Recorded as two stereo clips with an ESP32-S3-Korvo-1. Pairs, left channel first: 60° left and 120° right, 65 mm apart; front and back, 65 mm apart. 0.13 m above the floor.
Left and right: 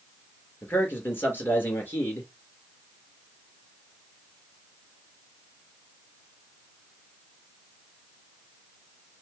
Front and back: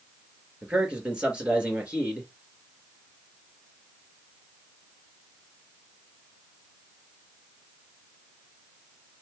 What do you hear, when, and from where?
0.6 s a man speaking: 110° left, 2 m